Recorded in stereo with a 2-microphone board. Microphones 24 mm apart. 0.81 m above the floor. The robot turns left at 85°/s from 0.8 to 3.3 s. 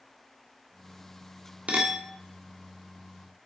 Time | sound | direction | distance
1.7 | a clink | 100° right | 1.1 m